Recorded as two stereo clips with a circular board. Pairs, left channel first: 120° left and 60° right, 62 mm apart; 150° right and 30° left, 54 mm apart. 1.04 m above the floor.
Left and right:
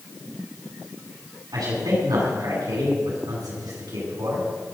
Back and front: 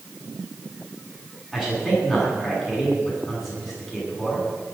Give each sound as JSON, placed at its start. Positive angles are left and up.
{"t": 1.5, "sound": "a man speaking", "azimuth_deg": -70, "distance_m": 10.0}